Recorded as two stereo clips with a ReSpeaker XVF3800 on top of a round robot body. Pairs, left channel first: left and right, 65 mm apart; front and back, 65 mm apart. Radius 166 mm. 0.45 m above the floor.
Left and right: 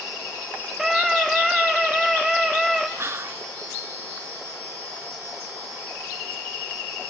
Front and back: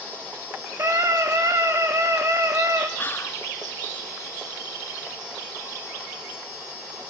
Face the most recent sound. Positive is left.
turn(degrees=-50)